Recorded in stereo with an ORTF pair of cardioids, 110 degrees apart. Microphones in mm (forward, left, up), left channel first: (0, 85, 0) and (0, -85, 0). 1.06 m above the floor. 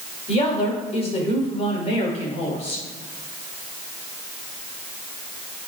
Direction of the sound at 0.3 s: 35° left.